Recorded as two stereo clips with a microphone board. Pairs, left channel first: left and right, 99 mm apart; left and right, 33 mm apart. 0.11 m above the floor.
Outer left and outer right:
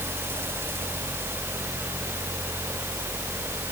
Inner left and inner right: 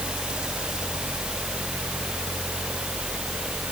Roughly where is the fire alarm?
I don't hear a fire alarm.